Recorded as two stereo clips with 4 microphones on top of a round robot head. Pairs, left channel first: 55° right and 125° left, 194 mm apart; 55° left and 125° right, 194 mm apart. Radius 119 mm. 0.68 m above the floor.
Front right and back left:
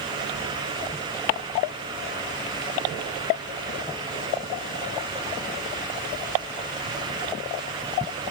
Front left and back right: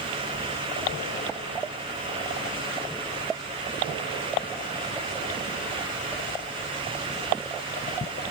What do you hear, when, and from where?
Only background noise.